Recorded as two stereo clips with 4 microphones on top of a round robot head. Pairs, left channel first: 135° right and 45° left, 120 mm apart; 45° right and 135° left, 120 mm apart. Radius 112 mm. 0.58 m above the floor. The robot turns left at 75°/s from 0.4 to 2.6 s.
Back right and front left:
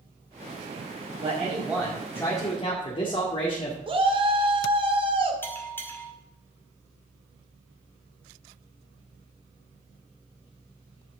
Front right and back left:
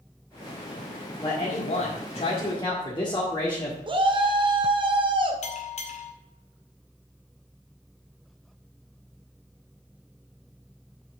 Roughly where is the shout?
Left.